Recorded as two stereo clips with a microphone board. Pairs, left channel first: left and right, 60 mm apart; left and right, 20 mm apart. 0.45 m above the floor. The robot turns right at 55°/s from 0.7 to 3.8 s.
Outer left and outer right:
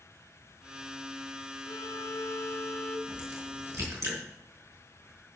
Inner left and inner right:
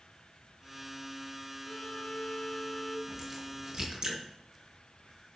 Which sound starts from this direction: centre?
A crack, at 3.1 s.